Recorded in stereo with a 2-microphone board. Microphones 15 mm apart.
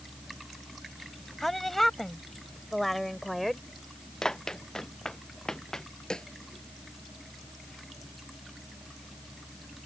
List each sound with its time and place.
1.4 s a woman speaking: 20° left (ahead or behind); by 3.7 s 10° left (ahead or behind)
4.2 s running footsteps: 45° left (ahead or behind)
6.1 s a snare drum: 60° left (ahead or behind)